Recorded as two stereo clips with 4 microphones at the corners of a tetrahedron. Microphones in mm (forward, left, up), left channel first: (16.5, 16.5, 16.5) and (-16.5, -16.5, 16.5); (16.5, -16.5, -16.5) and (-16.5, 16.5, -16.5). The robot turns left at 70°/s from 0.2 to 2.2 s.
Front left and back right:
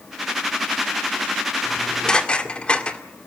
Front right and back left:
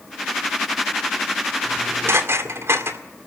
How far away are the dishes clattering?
About 2.0 m.